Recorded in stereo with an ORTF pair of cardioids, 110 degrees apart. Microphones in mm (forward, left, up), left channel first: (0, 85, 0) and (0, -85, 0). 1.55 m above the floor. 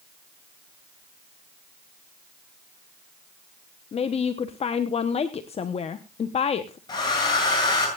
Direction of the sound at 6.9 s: 25° left.